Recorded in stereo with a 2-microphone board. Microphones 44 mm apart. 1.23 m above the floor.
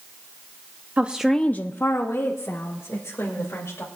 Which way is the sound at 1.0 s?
30° right (ahead or behind).